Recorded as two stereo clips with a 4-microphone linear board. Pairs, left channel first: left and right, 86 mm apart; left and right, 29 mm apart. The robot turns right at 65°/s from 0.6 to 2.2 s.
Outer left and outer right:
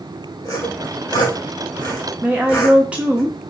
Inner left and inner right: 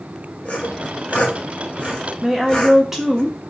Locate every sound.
0.5 s sawing: 45° left (ahead or behind), 1.0 m; by 3.2 s 30° left (ahead or behind), 1.0 m
2.2 s a woman speaking: 15° right (ahead or behind), 0.6 m